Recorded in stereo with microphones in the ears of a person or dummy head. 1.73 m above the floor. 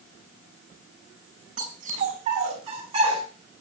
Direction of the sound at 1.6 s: 45° right (ahead or behind).